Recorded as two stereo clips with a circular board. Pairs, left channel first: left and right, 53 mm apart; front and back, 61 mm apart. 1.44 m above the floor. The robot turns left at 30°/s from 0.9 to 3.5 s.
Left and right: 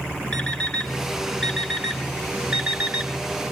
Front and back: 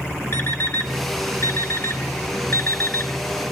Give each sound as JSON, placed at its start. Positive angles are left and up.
{"t": 0.3, "sound": "an alarm clock", "azimuth_deg": 25, "distance_m": 1.2}